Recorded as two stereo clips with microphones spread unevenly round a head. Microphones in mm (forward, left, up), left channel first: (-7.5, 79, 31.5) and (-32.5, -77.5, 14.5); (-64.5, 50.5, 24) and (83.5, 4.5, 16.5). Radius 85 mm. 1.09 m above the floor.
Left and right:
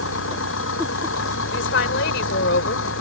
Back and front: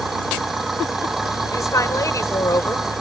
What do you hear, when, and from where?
0.0 s an engine running: 70° left
1.5 s a woman speaking: 95° left